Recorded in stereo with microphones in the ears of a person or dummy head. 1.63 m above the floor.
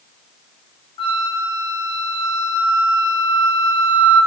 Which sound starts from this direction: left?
A flute, at 1.0 s.